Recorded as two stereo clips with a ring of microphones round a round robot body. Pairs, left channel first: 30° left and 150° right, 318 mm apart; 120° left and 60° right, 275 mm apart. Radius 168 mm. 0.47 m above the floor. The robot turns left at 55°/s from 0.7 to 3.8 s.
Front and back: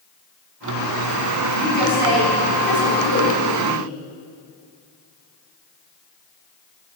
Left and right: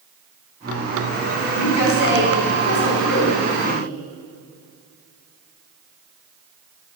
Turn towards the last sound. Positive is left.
turn(degrees=30)